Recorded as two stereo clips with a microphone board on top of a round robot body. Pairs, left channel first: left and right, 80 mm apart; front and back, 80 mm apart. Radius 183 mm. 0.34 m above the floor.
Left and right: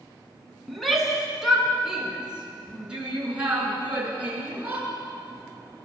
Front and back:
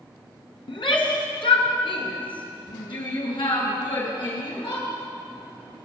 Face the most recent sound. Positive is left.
turn(degrees=-20)